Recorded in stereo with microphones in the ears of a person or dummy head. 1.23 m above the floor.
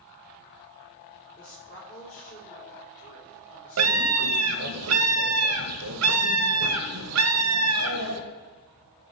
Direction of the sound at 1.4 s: 50° left (ahead or behind).